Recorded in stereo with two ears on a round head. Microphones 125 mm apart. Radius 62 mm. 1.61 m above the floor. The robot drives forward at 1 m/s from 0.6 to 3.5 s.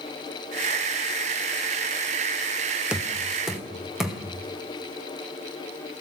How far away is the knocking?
About 0.7 m.